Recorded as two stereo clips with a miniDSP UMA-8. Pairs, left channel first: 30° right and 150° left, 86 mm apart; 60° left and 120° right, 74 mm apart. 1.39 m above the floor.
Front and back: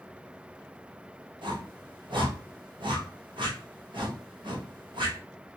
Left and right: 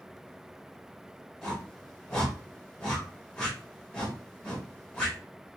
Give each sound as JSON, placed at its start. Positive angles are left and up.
{"t": 1.4, "sound": "a whoosh", "azimuth_deg": 140, "distance_m": 1.6}